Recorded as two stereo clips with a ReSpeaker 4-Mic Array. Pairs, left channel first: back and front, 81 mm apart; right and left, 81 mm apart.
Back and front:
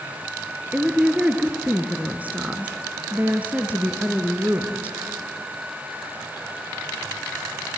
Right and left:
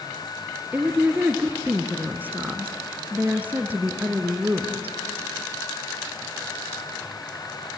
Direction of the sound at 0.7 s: 50° left.